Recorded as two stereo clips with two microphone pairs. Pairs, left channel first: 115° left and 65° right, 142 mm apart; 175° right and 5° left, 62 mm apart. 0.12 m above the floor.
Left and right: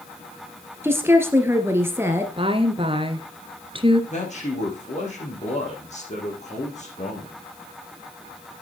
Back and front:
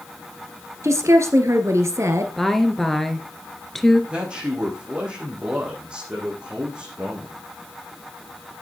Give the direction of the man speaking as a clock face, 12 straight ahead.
9 o'clock.